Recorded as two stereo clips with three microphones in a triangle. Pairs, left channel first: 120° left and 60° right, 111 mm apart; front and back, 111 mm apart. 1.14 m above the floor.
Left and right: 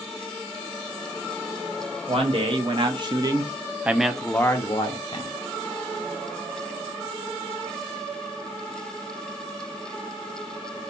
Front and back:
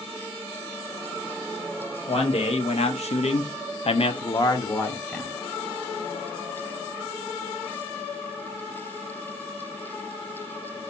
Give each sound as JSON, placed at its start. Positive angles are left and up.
{"t": 2.1, "sound": "a man speaking", "azimuth_deg": -30, "distance_m": 1.2}